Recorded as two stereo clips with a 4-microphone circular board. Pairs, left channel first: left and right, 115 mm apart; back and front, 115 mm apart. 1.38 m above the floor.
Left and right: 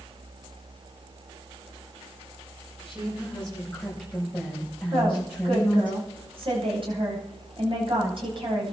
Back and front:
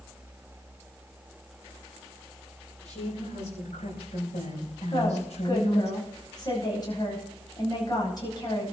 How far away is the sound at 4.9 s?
About 9.5 m.